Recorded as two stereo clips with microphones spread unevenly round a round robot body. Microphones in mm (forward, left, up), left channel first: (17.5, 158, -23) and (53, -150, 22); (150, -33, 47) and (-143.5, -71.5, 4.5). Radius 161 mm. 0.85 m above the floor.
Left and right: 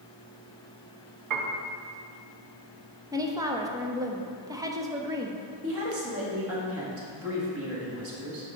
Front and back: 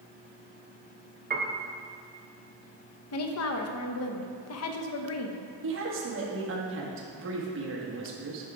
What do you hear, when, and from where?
1.3 s a piano: 120° right, 0.8 m
3.1 s a woman speaking: straight ahead, 0.8 m
5.6 s a woman speaking: 135° right, 1.6 m